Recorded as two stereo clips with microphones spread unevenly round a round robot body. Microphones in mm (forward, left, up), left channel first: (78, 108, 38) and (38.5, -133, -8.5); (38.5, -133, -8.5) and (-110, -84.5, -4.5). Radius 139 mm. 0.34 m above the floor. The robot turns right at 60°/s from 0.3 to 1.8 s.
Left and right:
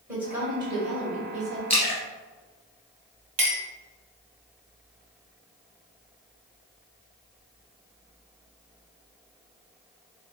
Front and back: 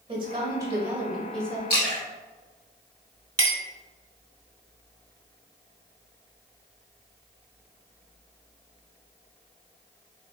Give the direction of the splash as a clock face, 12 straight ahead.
12 o'clock.